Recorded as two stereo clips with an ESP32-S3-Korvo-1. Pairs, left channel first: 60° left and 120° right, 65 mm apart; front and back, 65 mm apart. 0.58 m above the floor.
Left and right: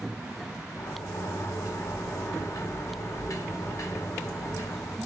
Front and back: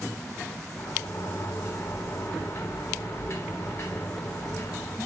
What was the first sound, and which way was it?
A sliding door, 40° left.